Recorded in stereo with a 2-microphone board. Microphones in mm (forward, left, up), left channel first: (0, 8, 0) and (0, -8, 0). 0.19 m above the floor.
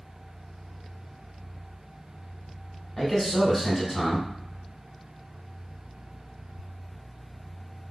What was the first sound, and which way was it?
A man speaking, 30° left (ahead or behind).